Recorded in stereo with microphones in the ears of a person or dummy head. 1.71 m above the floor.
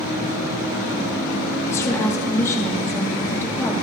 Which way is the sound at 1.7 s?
20° left (ahead or behind).